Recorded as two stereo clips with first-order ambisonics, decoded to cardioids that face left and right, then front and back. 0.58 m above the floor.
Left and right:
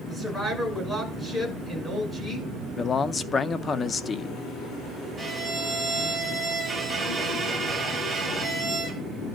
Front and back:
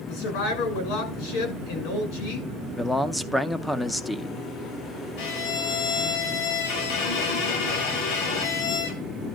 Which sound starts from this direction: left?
A man speaking, at 2.8 s.